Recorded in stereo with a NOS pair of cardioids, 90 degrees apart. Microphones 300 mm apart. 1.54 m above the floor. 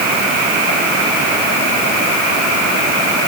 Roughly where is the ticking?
No ticking in this recording.